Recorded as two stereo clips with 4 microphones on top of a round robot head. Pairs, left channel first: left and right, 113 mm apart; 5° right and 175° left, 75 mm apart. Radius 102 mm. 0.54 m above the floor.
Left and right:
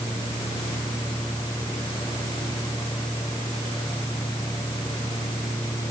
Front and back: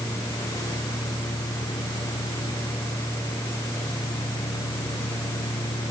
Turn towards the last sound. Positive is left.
No sound to turn to.